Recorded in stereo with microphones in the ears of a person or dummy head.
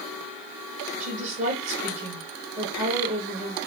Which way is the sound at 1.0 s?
40° right (ahead or behind).